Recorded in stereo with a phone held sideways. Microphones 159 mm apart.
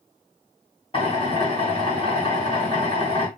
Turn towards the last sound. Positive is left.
turn(degrees=35)  # may be behind; listen again after turning